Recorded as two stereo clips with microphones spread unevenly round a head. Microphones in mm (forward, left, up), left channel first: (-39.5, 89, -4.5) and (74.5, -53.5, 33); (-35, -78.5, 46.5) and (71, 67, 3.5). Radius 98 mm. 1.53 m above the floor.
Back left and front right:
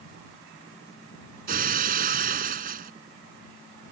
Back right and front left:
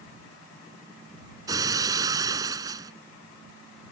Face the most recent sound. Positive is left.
turn(degrees=-20)